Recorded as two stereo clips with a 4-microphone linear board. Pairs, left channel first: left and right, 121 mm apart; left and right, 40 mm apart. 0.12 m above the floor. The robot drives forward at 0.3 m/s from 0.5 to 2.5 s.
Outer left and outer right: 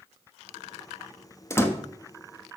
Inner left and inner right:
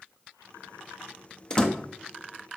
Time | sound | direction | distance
1.5 | a door slam | 20° left (ahead or behind) | 0.9 m